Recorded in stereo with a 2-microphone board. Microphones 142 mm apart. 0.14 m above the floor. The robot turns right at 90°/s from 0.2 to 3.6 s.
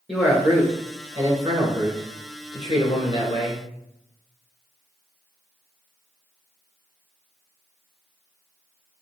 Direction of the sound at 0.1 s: 175° right.